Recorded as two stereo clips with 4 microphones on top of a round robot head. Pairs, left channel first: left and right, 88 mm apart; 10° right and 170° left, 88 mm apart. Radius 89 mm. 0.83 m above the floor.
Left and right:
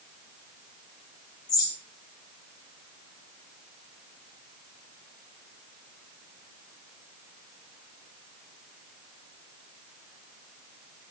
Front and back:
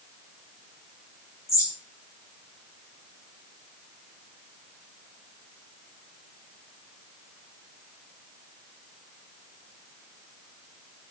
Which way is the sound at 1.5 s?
45° left.